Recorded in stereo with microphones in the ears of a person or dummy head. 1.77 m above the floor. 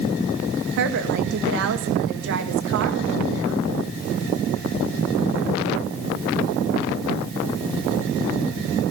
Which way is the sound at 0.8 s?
70° right (ahead or behind).